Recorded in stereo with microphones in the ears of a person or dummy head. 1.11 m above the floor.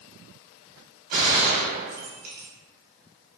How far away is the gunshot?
About 1.0 m.